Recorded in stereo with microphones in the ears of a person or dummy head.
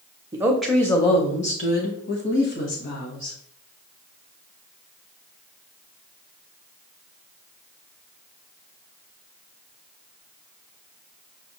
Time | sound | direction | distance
0.3 | a woman speaking | 15° right (ahead or behind) | 0.6 m